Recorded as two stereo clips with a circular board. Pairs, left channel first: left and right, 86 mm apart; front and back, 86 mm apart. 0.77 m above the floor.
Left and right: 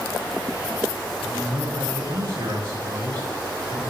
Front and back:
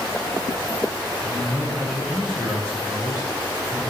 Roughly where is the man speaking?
Right.